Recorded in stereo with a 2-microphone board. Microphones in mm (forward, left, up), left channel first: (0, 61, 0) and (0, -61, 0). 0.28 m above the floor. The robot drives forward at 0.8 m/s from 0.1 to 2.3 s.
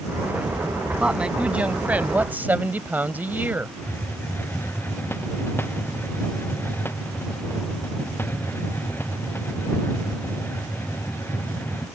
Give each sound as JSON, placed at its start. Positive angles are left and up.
{"t": 1.0, "sound": "a woman speaking", "side_deg": -10}
{"t": 3.8, "sound": "a hiss", "side_deg": 20}